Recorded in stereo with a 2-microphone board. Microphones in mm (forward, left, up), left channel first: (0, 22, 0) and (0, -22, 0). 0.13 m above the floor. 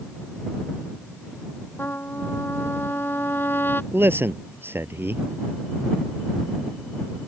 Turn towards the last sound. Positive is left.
turn(degrees=-60)  # may be behind; listen again after turning